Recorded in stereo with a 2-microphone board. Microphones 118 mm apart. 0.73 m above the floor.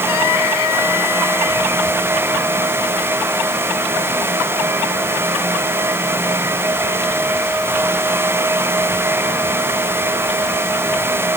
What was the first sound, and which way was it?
Only background noise.